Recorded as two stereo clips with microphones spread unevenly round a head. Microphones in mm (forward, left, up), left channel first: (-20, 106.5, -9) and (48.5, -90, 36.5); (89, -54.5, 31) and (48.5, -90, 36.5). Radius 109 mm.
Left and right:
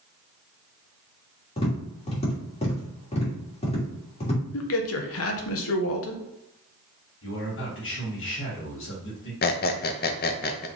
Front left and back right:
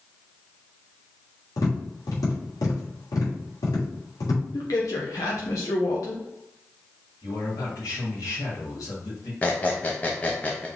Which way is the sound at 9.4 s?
95° left.